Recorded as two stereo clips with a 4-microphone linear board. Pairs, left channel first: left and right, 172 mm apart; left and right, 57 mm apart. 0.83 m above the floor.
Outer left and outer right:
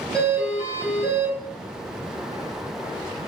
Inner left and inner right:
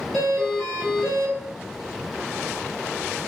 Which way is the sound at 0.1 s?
5° left (ahead or behind).